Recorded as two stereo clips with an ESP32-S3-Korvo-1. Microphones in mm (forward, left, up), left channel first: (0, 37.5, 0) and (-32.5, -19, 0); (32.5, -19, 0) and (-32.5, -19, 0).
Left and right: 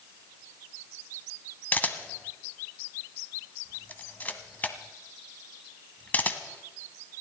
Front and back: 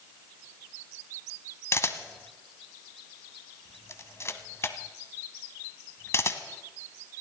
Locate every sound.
1.7 s a camera shutter: 10° left, 1.2 m